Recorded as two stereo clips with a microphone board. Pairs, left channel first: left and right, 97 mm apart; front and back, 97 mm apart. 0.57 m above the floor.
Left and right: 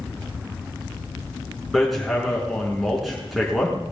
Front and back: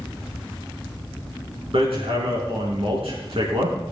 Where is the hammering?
Straight behind, 5 m.